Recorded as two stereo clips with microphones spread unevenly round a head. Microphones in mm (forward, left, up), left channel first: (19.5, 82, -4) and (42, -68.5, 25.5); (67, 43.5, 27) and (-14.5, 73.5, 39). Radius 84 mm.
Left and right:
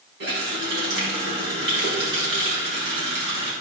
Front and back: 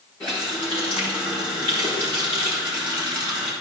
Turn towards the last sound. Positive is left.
turn(degrees=-100)